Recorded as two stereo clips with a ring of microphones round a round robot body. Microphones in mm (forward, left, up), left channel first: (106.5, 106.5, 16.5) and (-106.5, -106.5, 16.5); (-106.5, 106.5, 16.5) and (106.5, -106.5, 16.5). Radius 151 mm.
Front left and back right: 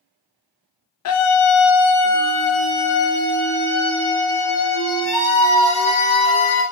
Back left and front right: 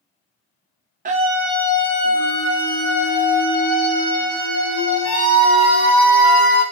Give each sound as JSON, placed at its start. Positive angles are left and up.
{"t": 1.1, "sound": "a scream", "azimuth_deg": 15, "distance_m": 0.7}